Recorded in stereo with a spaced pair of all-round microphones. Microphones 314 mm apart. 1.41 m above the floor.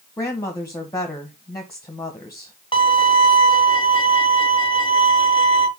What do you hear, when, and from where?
0.2 s a woman speaking: 10° left (ahead or behind), 1.4 m
2.7 s a violin: 15° left (ahead or behind), 1.4 m